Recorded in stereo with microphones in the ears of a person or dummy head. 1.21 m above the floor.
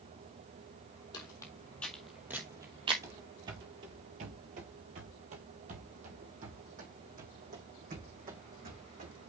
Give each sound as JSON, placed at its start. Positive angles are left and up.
{"t": 1.1, "sound": "footsteps", "side_deg": 25, "distance_m": 1.7}
{"t": 3.0, "sound": "running footsteps", "side_deg": -15, "distance_m": 1.3}